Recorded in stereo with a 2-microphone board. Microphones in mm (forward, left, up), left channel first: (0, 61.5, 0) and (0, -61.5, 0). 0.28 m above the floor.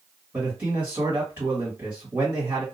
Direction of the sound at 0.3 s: 20° right (ahead or behind).